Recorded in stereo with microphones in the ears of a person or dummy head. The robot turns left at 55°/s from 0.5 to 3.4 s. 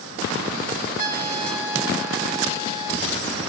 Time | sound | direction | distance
1.0 | a trumpet | 50° right | 4.5 m